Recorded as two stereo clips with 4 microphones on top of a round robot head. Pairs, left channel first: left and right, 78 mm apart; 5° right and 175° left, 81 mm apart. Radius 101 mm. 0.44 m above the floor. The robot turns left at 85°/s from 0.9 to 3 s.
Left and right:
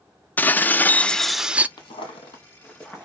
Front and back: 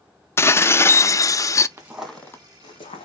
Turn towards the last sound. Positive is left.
turn(degrees=-10)